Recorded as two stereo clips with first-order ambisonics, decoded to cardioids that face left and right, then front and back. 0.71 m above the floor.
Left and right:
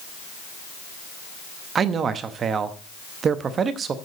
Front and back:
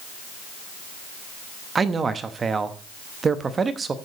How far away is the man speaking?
About 0.7 m.